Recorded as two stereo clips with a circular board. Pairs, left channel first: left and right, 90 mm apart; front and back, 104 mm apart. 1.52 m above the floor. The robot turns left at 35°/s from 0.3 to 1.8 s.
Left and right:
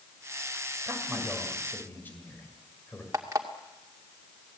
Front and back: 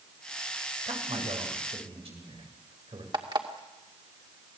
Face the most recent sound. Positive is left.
turn(degrees=-140)